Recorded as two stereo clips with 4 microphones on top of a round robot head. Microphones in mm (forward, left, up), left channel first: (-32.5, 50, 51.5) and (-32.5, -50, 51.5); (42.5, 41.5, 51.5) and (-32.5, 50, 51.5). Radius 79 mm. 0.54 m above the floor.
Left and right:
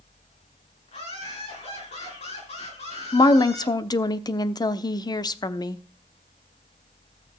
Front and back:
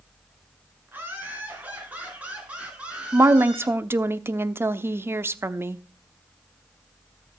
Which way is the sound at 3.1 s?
125° left.